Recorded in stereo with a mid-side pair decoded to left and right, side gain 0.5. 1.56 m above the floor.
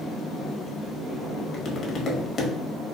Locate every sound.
1.5 s tapping: 50° left, 0.8 m